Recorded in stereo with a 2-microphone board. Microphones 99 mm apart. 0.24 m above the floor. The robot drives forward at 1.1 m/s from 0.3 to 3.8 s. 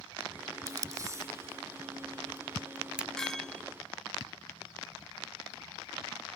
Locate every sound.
0.7 s tape being pulled: 35° right (ahead or behind); by 3.1 s 10° right (ahead or behind)
3.2 s a clink: 5° left (ahead or behind); by 3.6 s 10° left (ahead or behind)